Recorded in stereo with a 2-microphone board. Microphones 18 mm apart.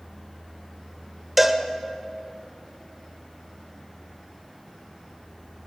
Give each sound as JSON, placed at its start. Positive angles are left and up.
{"t": 1.4, "sound": "a cowbell", "side_deg": -10, "distance_m": 1.1}